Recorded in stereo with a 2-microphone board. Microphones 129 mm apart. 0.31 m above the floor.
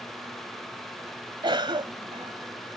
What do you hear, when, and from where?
1.4 s a cough: 40° right (ahead or behind)